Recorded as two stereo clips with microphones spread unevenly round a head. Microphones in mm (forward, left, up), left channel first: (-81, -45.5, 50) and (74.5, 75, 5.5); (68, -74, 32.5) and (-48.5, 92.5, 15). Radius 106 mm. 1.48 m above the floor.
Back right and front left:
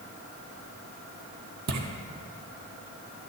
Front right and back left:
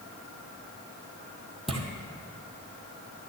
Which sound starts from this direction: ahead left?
Footsteps, at 1.7 s.